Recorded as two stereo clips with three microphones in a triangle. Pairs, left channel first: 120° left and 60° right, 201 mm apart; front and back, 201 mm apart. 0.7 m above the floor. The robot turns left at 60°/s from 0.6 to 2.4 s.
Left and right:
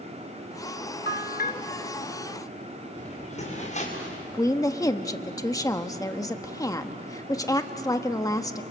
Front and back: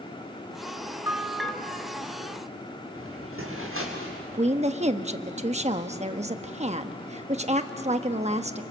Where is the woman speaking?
Straight behind, 1.0 m.